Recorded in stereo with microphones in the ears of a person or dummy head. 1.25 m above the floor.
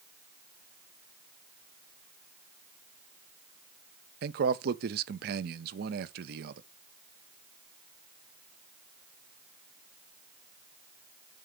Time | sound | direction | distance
4.2 | a man speaking | 55° right (ahead or behind) | 0.5 m